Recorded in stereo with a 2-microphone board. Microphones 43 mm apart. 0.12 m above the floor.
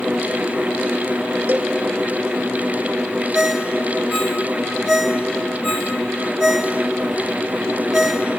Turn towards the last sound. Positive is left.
turn(degrees=-10)  # may be behind; listen again after turning